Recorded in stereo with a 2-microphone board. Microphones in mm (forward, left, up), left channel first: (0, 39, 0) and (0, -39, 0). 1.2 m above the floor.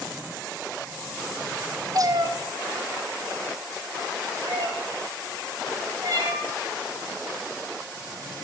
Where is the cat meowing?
50° right (ahead or behind), 0.7 m; by 6.5 s 45° right (ahead or behind), 3 m.